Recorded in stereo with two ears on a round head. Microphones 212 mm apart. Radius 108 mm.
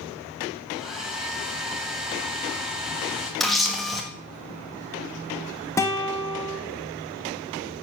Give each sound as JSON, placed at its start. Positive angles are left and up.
{"t": 0.7, "sound": "a hair dryer", "side_deg": 0, "distance_m": 3.5}
{"t": 3.4, "sound": "a camera shutter", "side_deg": 0, "distance_m": 1.5}
{"t": 5.8, "sound": "a guitar", "side_deg": 10, "distance_m": 1.1}